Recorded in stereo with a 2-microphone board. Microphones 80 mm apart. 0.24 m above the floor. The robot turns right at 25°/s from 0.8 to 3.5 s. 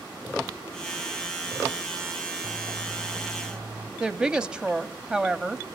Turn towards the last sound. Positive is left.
turn(degrees=-10)  # may be behind; listen again after turning